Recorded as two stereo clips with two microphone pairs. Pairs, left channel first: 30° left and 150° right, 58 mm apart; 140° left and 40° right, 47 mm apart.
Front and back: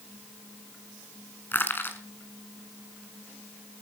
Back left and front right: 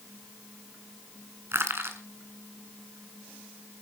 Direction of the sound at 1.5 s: 20° right.